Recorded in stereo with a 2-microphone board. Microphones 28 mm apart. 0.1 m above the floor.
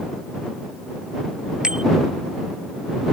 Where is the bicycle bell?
25° right (ahead or behind).